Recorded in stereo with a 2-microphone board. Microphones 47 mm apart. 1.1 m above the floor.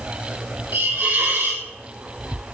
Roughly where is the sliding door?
No sliding door in this recording.